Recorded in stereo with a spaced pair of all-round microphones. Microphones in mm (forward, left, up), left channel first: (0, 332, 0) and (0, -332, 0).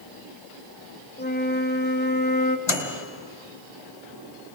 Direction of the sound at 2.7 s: 45° left (ahead or behind).